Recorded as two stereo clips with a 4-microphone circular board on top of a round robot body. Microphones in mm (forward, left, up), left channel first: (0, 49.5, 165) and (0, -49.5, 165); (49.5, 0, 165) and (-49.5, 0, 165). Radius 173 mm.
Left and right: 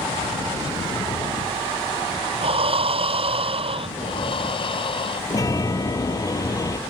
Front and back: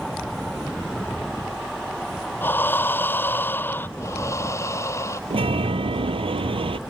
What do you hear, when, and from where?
2.4 s breathing: 70° right
4.0 s breathing: 60° left
5.3 s a chime: 150° left